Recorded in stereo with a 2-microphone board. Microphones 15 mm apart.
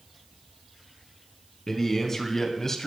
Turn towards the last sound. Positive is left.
turn(degrees=25)  # may be behind; listen again after turning